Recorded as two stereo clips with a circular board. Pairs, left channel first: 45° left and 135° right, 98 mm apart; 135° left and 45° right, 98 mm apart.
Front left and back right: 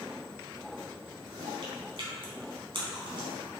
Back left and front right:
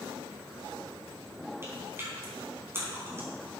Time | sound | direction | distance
1.6 | chewing | 110° right | 4 m